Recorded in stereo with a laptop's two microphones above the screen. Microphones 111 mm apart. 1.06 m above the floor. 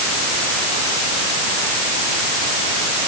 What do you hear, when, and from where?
Only background noise.